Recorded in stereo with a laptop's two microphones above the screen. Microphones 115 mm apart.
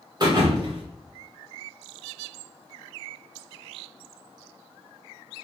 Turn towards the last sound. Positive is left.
turn(degrees=-40)  # may be behind; listen again after turning